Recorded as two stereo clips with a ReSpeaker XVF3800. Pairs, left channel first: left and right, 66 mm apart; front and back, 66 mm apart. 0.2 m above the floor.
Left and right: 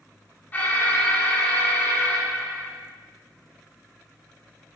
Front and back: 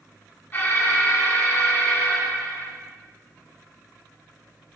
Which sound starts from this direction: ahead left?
An alarm, at 0.5 s.